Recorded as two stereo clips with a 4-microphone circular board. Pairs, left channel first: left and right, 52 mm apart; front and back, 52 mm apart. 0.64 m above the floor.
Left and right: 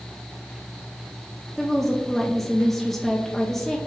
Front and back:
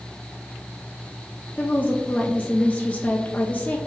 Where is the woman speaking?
5° left, 0.5 m.